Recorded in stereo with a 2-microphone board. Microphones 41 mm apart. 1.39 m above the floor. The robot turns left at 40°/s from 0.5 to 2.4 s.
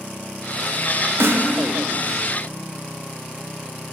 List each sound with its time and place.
1.2 s a snare drum: 65° right (ahead or behind), 0.5 m